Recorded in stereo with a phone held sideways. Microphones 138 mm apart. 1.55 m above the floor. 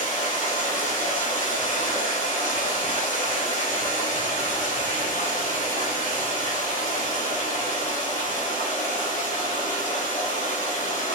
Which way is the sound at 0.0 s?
70° left (ahead or behind).